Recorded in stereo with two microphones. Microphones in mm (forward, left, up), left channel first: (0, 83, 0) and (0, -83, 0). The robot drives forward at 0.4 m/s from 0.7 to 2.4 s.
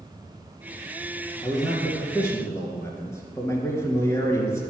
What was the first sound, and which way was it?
A man speaking, 15° left (ahead or behind).